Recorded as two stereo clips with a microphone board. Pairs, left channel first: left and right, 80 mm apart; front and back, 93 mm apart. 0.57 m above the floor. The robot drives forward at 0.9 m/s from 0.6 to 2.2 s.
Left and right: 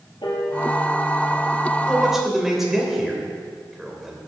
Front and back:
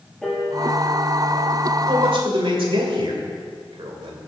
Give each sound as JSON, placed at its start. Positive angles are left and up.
{"t": 0.2, "sound": "a piano", "azimuth_deg": 80, "distance_m": 4.5}
{"t": 1.9, "sound": "a man speaking", "azimuth_deg": -175, "distance_m": 2.0}